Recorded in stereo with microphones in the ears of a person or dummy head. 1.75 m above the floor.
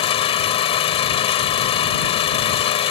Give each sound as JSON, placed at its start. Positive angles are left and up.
{"t": 0.0, "sound": "an engine running", "side_deg": 30}